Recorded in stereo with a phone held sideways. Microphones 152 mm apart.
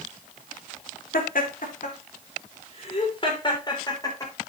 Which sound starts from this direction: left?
Laughter, at 1.1 s.